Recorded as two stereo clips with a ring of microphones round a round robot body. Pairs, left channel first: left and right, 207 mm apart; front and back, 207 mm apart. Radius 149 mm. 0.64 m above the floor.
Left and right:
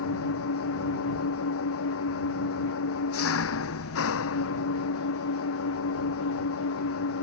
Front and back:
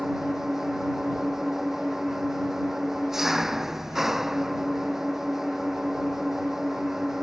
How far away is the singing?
I don't hear singing.